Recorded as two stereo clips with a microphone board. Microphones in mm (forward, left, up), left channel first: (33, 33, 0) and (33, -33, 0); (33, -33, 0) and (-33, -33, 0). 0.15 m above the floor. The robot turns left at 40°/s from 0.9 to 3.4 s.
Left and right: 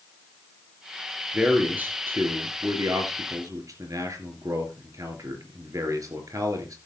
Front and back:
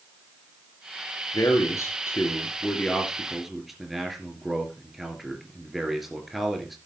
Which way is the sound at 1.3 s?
10° right.